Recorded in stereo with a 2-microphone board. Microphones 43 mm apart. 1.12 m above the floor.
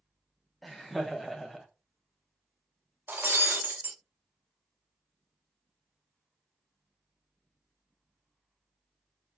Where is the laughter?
Centre (ahead or behind), 0.6 m.